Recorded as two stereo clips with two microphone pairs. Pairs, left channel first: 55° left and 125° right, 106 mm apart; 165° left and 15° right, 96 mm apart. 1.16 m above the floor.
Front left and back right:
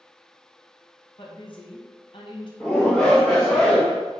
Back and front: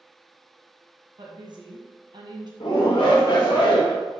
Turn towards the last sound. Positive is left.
turn(degrees=135)